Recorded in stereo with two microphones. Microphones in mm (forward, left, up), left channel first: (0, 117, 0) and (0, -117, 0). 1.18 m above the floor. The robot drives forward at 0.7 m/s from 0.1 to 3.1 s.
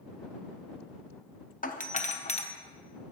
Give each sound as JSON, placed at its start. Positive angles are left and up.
{"t": 1.6, "sound": "a doorbell", "side_deg": 35, "distance_m": 0.8}